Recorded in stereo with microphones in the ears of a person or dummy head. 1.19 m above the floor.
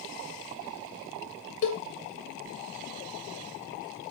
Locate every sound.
1.6 s a cowbell: 30° left (ahead or behind), 1.7 m